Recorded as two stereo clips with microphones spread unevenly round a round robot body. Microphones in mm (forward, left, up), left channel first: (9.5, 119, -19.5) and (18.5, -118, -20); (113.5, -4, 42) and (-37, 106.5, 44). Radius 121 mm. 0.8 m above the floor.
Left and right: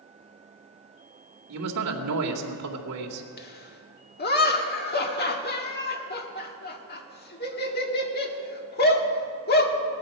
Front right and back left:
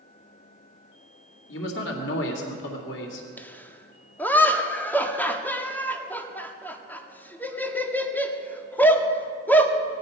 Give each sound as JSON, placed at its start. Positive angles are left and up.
{"t": 1.5, "sound": "a man speaking", "azimuth_deg": -65, "distance_m": 2.0}
{"t": 3.4, "sound": "laughter", "azimuth_deg": 45, "distance_m": 1.8}